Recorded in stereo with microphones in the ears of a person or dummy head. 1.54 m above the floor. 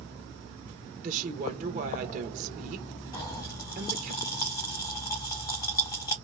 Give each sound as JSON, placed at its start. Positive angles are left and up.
{"t": 1.0, "sound": "a woman speaking", "side_deg": -40, "distance_m": 1.1}
{"t": 3.1, "sound": "a pop", "side_deg": 15, "distance_m": 0.8}